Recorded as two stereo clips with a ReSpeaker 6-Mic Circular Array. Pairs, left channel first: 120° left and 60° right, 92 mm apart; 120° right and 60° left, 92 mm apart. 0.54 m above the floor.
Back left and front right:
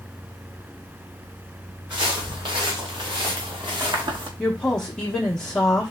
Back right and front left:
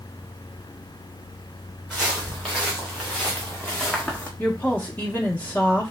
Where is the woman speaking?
175° right, 0.9 m.